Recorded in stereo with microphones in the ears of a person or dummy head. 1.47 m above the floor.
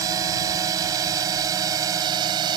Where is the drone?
20° right (ahead or behind).